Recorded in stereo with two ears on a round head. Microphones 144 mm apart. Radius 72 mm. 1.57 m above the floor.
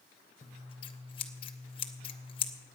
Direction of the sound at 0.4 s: 30° left (ahead or behind).